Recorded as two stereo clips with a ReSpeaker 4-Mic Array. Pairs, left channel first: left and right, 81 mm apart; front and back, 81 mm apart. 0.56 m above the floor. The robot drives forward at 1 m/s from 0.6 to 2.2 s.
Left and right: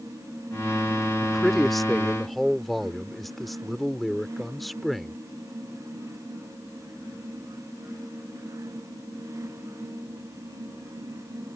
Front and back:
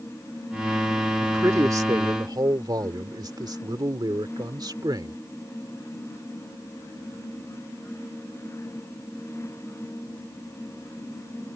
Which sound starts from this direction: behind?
A man speaking, at 1.2 s.